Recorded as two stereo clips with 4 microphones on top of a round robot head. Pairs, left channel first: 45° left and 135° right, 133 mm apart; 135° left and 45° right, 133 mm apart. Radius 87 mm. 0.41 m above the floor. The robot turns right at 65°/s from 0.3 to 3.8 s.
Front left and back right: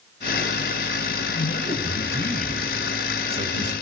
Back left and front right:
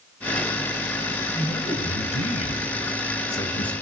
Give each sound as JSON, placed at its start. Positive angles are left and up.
{"t": 1.3, "sound": "a man speaking", "azimuth_deg": 60, "distance_m": 3.0}